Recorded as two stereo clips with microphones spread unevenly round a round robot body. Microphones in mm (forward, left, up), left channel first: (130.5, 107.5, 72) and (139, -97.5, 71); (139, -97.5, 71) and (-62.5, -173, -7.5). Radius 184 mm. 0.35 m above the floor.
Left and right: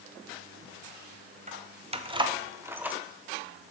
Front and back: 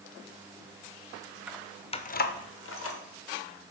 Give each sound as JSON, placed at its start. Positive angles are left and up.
{"t": 1.5, "sound": "keys jangling", "azimuth_deg": -110, "distance_m": 0.8}